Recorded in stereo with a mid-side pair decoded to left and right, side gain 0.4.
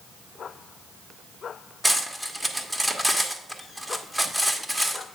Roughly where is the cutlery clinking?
Ahead.